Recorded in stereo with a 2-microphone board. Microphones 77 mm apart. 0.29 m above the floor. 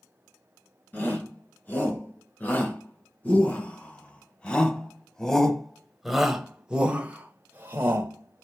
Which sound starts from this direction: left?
A shout, at 0.9 s.